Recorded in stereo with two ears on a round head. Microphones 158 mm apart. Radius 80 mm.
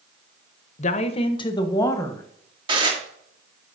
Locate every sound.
0.8 s a woman speaking: 45° left (ahead or behind), 0.8 m; by 2.2 s 15° left (ahead or behind), 1.4 m
2.7 s dishes clattering: 30° right (ahead or behind), 1.6 m